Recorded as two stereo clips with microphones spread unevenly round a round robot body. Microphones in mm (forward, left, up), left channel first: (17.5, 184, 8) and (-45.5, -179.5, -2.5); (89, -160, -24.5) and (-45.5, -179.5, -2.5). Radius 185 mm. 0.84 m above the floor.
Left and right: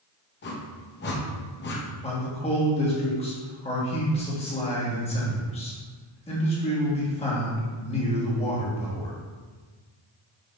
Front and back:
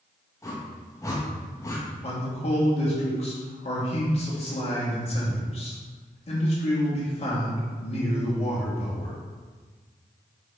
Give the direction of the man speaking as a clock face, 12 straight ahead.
12 o'clock.